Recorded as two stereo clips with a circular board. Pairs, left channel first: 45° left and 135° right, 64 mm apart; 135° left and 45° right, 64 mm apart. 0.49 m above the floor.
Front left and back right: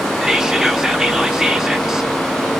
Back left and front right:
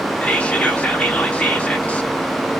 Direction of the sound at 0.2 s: 160° left.